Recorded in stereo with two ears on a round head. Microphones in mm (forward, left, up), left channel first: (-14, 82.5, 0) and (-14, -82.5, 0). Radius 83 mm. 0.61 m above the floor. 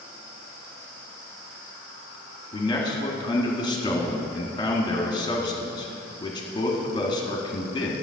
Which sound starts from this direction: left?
A man speaking, at 2.5 s.